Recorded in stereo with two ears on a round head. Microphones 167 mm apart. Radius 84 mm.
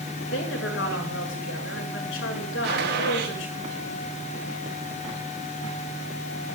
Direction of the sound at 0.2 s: 70° left (ahead or behind).